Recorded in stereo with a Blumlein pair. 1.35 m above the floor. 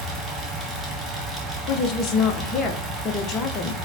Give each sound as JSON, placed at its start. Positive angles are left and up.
{"t": 0.0, "sound": "a fan", "azimuth_deg": -10, "distance_m": 1.0}
{"t": 1.7, "sound": "a woman speaking", "azimuth_deg": 30, "distance_m": 0.6}